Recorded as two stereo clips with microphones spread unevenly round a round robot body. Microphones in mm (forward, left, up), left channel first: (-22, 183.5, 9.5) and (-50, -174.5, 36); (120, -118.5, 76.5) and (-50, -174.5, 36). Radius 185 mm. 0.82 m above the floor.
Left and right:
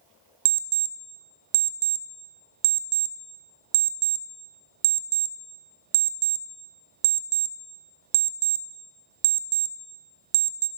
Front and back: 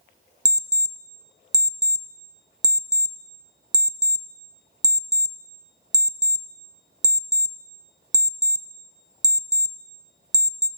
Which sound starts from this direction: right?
An alarm clock, at 0.5 s.